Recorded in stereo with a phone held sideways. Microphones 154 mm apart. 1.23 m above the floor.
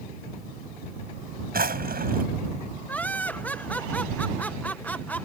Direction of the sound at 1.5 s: 75° right (ahead or behind).